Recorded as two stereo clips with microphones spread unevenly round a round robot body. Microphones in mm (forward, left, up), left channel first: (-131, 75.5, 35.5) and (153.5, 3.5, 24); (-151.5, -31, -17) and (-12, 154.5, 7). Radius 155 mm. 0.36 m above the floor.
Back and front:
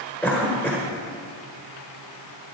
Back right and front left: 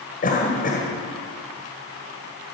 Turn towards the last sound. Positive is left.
turn(degrees=-110)